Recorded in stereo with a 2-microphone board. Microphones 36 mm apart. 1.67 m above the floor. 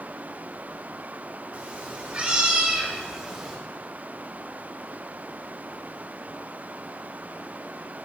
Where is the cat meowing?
45° right (ahead or behind), 1.7 m; by 3.6 s 5° right (ahead or behind), 2.5 m.